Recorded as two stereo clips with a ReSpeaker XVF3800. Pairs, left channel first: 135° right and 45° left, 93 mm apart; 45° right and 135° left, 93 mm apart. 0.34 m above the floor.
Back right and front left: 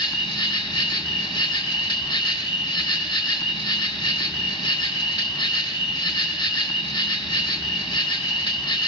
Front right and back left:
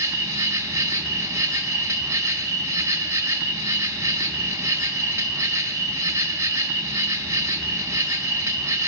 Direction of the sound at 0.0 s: 170° right.